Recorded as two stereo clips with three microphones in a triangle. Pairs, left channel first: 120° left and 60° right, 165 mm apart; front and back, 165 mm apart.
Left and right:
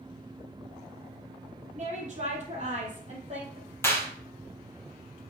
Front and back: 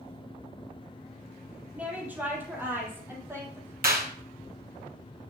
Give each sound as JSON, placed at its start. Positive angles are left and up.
{"t": 1.8, "sound": "a woman speaking", "azimuth_deg": -100, "distance_m": 3.5}
{"t": 3.8, "sound": "a clap", "azimuth_deg": -165, "distance_m": 2.5}